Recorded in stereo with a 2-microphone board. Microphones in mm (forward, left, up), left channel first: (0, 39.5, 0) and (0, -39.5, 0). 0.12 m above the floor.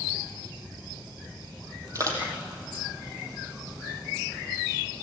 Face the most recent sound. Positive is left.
turn(degrees=-40)  # may be behind; listen again after turning